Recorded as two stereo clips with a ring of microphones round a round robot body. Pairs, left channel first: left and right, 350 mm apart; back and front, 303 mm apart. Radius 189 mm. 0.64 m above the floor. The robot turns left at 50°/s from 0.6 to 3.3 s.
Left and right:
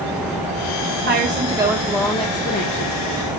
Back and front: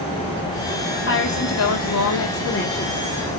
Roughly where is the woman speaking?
Behind right.